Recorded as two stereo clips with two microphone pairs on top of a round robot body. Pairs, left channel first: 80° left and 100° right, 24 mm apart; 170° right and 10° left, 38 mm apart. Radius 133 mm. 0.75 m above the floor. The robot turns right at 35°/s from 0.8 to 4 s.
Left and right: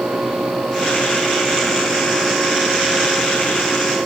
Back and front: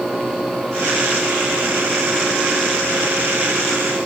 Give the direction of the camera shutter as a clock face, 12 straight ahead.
No camera shutter in this recording.